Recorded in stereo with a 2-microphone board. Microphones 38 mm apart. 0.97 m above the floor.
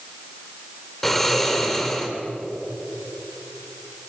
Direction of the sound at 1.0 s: 10° left (ahead or behind).